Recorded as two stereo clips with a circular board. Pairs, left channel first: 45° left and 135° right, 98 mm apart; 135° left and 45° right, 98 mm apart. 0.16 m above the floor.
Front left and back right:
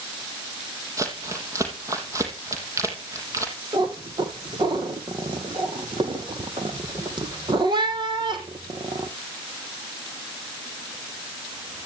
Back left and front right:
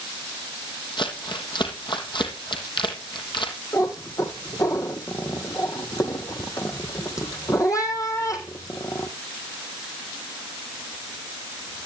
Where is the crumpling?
170° left, 3.5 m.